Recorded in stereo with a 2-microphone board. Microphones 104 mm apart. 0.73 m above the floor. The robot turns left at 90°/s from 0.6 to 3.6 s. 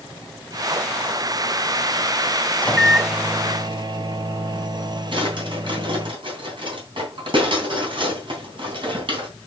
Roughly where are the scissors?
I don't hear scissors.